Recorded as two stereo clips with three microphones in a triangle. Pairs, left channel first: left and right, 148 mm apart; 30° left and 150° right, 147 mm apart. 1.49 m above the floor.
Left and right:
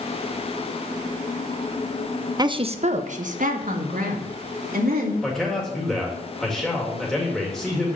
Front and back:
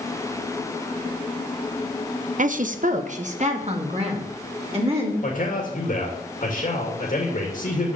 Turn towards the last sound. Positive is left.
turn(degrees=5)